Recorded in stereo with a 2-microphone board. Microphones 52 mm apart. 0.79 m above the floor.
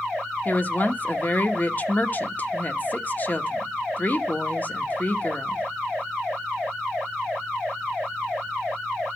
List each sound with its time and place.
0.5 s a woman speaking: 35° left (ahead or behind), 1.1 m